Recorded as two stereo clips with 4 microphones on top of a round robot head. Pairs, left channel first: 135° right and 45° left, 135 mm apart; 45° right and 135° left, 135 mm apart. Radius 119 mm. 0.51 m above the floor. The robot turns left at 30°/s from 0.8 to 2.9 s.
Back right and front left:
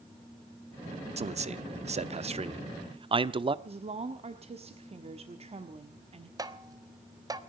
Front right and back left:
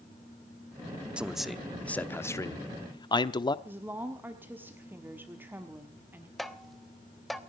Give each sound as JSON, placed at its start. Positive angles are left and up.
{"t": 1.2, "sound": "a man speaking", "azimuth_deg": 55, "distance_m": 0.9}
{"t": 3.6, "sound": "a woman speaking", "azimuth_deg": 65, "distance_m": 1.4}
{"t": 6.4, "sound": "tapping", "azimuth_deg": 45, "distance_m": 1.3}